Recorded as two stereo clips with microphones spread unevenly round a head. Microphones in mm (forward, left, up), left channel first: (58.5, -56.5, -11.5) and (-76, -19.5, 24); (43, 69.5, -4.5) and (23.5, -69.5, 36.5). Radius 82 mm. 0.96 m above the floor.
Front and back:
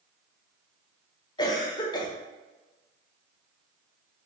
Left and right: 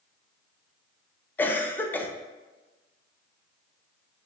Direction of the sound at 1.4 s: 25° left.